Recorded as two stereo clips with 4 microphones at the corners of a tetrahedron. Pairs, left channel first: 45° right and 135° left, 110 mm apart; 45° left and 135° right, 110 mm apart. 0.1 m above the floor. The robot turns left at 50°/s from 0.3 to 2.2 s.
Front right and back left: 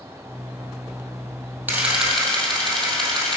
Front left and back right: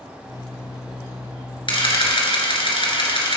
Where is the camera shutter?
65° left, 2.5 m; by 3.4 s 40° left, 2.5 m.